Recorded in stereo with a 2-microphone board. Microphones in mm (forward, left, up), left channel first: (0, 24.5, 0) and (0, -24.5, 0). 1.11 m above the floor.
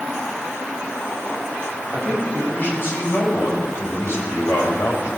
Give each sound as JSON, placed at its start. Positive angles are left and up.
{"t": 1.9, "sound": "a man speaking", "side_deg": 40, "distance_m": 6.5}